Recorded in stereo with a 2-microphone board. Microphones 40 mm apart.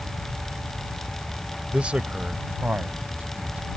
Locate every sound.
1.7 s a man speaking: 30° right (ahead or behind); by 3.8 s 40° right (ahead or behind)